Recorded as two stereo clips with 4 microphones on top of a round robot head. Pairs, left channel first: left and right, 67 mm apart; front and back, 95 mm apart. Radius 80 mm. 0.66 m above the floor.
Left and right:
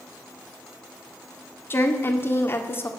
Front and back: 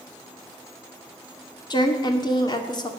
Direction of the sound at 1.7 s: 40° left.